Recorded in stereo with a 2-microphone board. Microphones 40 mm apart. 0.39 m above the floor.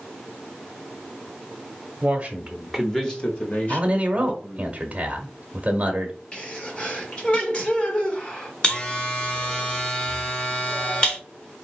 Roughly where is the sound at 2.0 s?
Right.